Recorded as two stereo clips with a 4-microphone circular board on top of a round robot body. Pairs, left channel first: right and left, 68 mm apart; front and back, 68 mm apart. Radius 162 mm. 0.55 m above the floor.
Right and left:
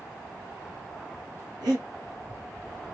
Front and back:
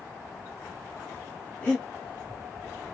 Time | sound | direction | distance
1.6 | breathing | 65° left | 0.5 m